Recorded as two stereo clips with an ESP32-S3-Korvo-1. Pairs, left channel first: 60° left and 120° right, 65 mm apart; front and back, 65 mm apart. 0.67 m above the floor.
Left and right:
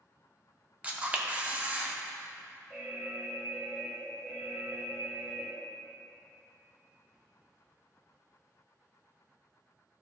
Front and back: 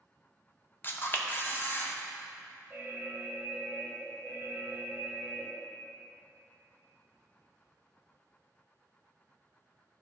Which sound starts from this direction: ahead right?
A camera shutter, at 0.8 s.